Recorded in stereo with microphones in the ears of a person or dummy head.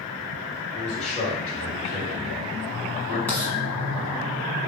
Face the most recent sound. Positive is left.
turn(degrees=10)  # may be behind; listen again after turning